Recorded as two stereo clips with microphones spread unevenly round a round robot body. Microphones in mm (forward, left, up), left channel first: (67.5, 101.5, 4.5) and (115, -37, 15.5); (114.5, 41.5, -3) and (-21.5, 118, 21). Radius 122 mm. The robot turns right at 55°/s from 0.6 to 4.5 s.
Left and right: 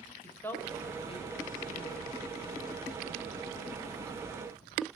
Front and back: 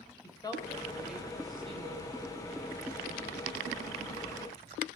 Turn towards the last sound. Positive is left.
turn(degrees=-110)